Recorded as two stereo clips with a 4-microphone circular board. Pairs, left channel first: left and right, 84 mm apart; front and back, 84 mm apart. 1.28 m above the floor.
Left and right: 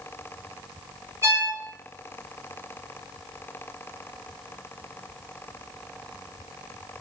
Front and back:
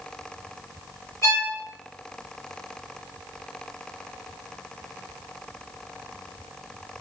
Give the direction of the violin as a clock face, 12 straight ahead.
1 o'clock.